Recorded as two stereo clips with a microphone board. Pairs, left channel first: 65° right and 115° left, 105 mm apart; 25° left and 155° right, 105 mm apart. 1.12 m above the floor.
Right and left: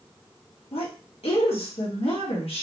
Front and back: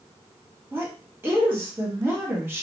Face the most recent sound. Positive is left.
turn(degrees=-90)